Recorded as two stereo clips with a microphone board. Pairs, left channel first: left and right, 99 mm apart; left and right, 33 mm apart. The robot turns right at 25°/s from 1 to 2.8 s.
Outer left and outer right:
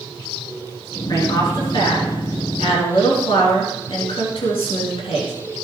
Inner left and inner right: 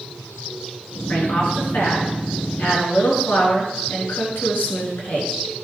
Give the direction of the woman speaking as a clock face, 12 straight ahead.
10 o'clock.